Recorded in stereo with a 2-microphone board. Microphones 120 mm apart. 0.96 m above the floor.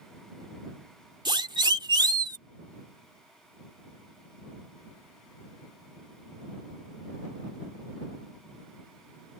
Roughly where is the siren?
Right.